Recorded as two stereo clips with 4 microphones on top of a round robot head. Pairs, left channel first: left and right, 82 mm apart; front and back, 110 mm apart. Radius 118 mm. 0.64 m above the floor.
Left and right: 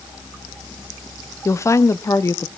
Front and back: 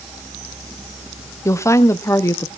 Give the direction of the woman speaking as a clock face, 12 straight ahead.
10 o'clock.